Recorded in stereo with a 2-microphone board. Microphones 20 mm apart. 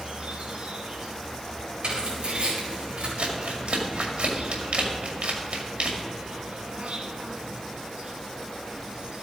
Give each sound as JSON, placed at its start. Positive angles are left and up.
{"t": 0.0, "sound": "an insect", "side_deg": -70, "distance_m": 1.7}
{"t": 1.8, "sound": "tearing paper", "side_deg": -70, "distance_m": 4.5}
{"t": 3.2, "sound": "crumpling", "side_deg": -75, "distance_m": 2.0}